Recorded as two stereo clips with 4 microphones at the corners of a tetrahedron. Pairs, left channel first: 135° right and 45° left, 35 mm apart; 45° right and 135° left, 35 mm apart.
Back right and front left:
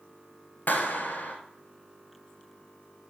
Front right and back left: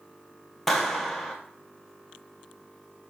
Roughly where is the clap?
Behind right.